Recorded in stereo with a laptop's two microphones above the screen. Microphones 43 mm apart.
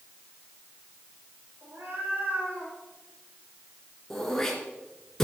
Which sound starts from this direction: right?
A cat meowing, at 1.6 s.